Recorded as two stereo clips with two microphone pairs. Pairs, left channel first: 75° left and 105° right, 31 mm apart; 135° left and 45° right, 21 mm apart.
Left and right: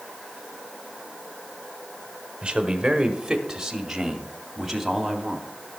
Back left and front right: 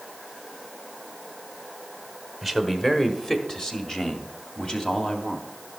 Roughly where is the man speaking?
Behind right.